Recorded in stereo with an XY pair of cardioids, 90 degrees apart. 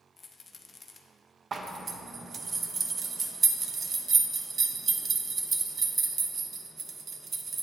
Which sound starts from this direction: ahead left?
A rattle, at 0.2 s.